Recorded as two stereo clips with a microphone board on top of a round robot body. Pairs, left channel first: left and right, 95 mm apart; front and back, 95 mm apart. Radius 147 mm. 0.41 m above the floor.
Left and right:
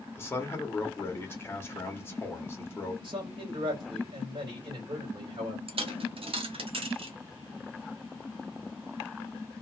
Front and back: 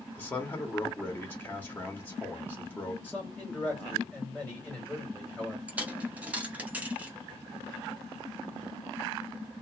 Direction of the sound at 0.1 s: 50° left.